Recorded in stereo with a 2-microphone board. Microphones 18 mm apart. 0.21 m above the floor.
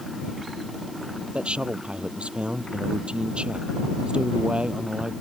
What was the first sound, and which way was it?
A man speaking, 70° right (ahead or behind).